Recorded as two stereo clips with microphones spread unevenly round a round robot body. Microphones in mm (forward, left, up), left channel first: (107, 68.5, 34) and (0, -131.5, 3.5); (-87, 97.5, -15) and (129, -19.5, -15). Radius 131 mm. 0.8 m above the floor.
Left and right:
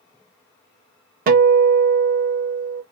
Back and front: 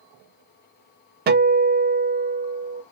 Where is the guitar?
70° right, 0.7 m.